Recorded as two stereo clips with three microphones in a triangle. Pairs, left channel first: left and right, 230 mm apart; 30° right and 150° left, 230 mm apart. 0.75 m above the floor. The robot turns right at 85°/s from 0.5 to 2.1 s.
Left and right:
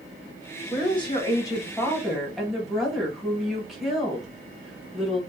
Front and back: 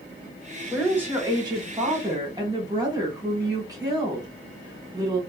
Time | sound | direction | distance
0.7 | a woman speaking | 65° left | 1.0 m